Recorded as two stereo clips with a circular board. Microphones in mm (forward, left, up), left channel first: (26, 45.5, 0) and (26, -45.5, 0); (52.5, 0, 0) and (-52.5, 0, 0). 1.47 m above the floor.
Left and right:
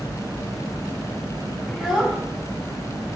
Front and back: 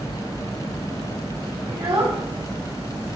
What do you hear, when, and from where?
1.7 s a child speaking: 175° right, 1.0 m